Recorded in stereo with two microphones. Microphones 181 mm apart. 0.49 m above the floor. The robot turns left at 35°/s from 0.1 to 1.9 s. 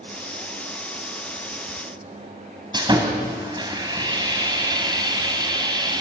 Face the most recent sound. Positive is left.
turn(degrees=-25)  # may be behind; listen again after turning